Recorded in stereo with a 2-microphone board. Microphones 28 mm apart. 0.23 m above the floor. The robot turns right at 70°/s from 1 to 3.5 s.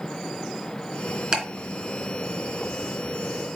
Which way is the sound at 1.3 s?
30° right (ahead or behind).